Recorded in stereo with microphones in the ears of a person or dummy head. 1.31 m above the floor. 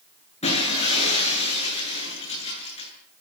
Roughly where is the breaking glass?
Left.